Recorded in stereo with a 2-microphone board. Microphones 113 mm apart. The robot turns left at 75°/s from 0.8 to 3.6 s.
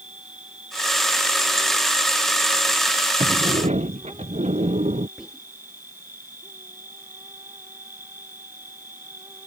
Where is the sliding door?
50° right (ahead or behind); by 5.1 s 80° right.